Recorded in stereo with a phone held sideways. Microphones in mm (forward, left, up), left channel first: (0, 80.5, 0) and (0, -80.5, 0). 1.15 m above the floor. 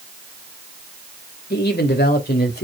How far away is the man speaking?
About 2.5 m.